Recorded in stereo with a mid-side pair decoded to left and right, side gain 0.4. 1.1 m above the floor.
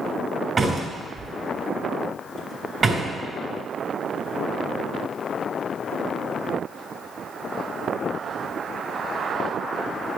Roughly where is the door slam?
Ahead right.